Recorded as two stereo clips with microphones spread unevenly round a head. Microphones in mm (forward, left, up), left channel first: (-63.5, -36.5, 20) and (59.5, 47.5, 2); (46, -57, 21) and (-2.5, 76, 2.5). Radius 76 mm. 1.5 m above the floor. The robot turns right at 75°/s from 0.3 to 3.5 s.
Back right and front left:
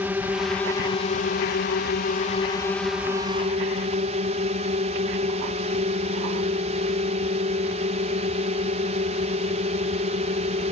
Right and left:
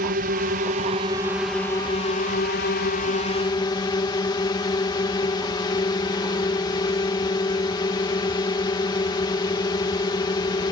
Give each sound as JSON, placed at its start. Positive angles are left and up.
{"t": 0.0, "sound": "a drone", "azimuth_deg": 110}